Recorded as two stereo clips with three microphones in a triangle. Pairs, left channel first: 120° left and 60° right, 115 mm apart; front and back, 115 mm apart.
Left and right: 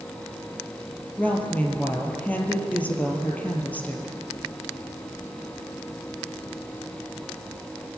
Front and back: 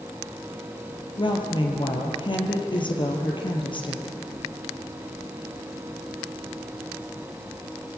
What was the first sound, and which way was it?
A woman speaking, 45° left.